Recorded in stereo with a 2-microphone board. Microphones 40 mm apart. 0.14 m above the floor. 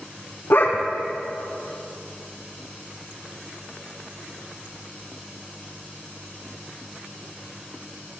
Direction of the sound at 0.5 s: 65° left (ahead or behind).